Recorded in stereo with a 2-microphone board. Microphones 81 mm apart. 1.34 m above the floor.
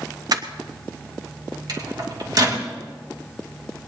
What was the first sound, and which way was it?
Crushing, 55° right (ahead or behind).